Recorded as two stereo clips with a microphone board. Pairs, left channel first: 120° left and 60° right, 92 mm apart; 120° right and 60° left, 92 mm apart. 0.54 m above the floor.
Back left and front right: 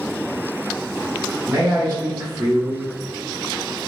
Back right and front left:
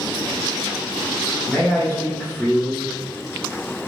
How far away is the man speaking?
About 1.2 m.